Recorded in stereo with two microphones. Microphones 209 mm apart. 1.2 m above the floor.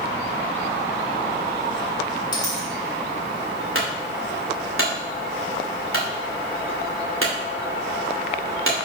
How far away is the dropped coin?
About 2.5 m.